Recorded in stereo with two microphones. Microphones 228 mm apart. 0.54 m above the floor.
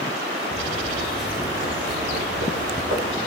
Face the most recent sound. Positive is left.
turn(degrees=-70)  # may be behind; listen again after turning